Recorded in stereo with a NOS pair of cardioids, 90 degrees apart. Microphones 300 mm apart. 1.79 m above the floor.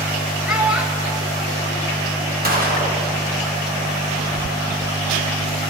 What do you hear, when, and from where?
0.5 s a child speaking: 5° right, 2 m
2.4 s a gunshot: 30° right, 2.5 m